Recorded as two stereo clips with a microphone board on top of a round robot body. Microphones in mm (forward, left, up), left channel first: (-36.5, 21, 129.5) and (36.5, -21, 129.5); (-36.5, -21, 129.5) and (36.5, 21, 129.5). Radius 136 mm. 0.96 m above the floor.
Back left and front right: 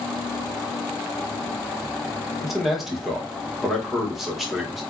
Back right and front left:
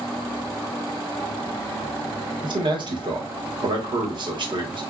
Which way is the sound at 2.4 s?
55° left.